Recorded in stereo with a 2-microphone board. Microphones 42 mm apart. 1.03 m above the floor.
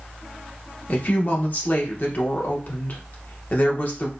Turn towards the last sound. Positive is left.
turn(degrees=50)  # may be behind; listen again after turning